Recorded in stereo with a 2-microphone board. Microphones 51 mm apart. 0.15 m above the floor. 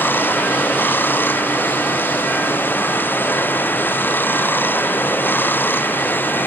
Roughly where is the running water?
Left.